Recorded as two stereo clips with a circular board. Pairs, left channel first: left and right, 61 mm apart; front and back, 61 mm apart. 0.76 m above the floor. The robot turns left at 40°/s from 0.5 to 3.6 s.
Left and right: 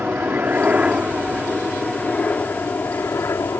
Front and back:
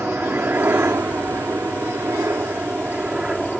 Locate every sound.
0.0 s a helicopter: 140° right; by 3.6 s 95° left